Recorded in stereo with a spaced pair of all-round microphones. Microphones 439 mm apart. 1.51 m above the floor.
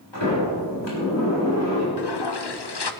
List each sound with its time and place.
0.1 s a sliding door: 85° left, 6 m
2.0 s a toilet flushing: 65° left (ahead or behind), 0.8 m